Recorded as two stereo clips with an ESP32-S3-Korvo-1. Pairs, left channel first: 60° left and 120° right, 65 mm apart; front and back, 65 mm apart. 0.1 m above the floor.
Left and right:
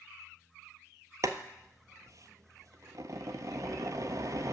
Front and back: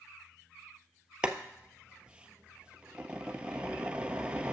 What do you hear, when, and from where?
1.2 s boiling: 110° right, 0.6 m